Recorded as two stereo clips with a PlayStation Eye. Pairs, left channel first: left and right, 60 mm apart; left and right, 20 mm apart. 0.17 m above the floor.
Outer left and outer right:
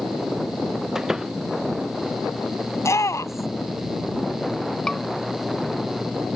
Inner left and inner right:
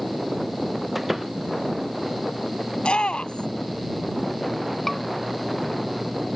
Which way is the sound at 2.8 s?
55° left (ahead or behind).